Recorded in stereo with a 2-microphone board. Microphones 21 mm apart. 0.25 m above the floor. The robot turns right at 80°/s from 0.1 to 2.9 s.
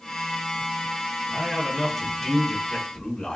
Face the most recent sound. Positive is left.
turn(degrees=70)